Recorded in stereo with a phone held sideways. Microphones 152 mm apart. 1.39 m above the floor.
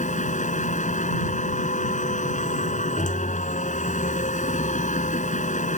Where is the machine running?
55° left (ahead or behind).